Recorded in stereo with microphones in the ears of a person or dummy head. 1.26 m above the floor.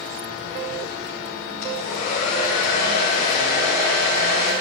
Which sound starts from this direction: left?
A hair dryer, at 1.6 s.